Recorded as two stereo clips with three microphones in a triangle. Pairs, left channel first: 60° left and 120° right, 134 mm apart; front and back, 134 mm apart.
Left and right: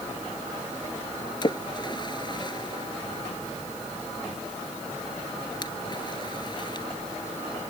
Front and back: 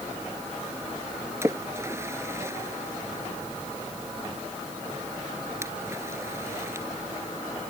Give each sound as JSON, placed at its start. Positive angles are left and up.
{"t": 1.4, "sound": "a splash", "azimuth_deg": 110}